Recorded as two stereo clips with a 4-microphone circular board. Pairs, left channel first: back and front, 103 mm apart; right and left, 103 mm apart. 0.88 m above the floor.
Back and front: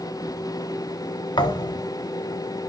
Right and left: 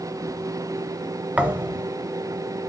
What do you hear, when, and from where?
1.4 s a thud: 160° left, 0.8 m